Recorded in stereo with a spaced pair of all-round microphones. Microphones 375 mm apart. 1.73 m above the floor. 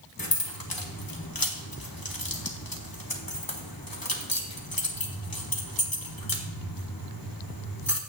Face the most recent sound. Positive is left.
turn(degrees=65)  # may be behind; listen again after turning